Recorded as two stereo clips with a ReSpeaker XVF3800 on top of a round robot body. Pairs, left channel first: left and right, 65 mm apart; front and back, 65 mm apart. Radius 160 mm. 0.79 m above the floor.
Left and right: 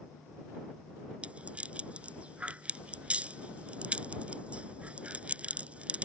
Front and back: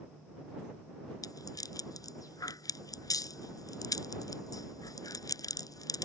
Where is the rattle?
20° right.